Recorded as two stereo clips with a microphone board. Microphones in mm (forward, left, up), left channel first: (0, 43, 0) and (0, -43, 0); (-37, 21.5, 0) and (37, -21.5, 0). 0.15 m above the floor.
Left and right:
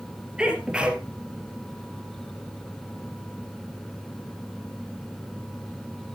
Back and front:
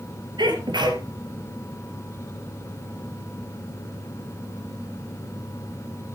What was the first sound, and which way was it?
A sneeze, 10° right.